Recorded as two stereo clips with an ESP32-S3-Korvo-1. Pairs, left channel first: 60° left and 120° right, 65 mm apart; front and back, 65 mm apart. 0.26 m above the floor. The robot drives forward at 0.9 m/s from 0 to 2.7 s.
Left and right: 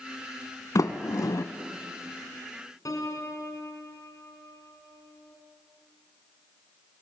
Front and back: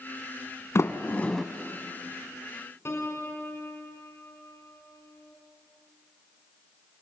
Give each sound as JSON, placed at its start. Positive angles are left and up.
{"t": 0.8, "sound": "a sliding door", "azimuth_deg": 40, "distance_m": 0.9}
{"t": 2.9, "sound": "a piano", "azimuth_deg": 40, "distance_m": 2.0}